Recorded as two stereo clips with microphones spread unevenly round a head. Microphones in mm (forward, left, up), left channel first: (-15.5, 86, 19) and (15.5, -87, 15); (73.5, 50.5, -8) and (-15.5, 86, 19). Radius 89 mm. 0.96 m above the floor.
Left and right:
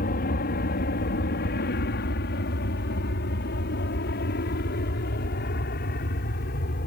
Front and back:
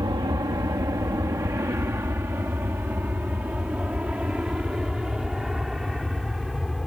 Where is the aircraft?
120° left; by 6.9 s 65° left.